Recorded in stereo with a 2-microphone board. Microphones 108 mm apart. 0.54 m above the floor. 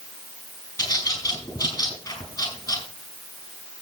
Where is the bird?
40° left (ahead or behind), 5 m.